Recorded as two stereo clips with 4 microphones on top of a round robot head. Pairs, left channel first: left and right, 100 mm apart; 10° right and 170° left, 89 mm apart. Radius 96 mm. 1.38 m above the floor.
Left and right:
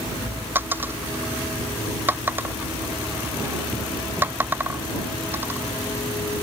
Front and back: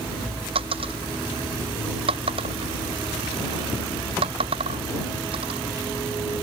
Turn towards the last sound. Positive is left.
turn(degrees=-160)